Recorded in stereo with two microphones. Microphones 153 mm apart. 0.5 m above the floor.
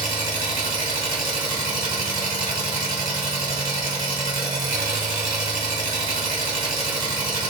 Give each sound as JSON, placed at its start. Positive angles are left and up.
{"t": 0.0, "sound": "an engine running", "side_deg": -70, "distance_m": 1.6}